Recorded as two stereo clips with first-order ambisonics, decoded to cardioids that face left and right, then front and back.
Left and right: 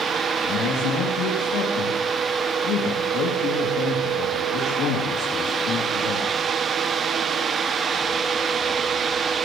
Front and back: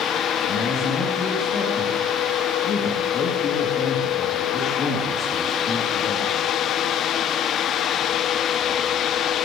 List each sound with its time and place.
0.4 s a man speaking: 55° left, 3 m